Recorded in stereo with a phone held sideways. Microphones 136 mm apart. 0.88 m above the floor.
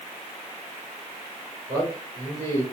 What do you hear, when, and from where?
1.7 s a man speaking: 35° right (ahead or behind), 1.9 m